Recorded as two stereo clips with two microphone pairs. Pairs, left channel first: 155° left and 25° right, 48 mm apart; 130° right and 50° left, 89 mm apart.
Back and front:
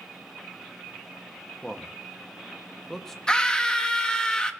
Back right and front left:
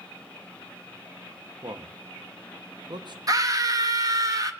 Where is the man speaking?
75° left, 1.0 m.